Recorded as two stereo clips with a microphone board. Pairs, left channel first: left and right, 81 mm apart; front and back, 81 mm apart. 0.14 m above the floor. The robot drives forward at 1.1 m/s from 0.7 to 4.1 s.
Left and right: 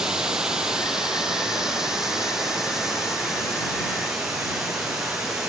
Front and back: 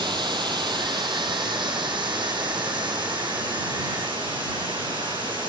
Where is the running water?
170° right, 3.5 m; by 5.5 s 175° right, 7.5 m.